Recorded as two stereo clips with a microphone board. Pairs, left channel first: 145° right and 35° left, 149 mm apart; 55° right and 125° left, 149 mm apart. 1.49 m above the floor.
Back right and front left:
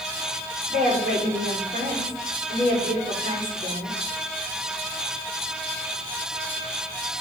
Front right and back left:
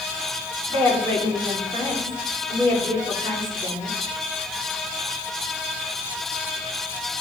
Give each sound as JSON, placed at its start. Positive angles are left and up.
{"t": 0.7, "sound": "a woman speaking", "azimuth_deg": 15, "distance_m": 3.5}